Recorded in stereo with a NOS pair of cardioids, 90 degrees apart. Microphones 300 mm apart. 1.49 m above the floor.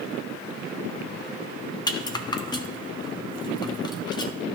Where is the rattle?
15° left, 0.8 m.